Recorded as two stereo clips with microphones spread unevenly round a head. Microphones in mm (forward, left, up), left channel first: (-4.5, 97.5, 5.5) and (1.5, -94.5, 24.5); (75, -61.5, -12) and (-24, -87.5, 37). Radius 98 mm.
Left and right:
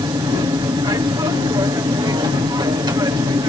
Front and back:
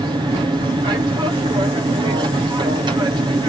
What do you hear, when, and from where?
0.0 s an aircraft: 125° right